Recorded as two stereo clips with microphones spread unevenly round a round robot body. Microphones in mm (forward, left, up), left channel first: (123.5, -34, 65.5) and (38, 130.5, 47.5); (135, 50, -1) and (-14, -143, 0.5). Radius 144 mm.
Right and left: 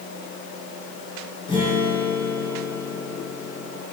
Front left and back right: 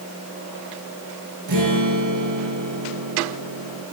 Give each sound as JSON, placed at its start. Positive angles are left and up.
{"t": 1.5, "sound": "a guitar", "azimuth_deg": -135, "distance_m": 3.5}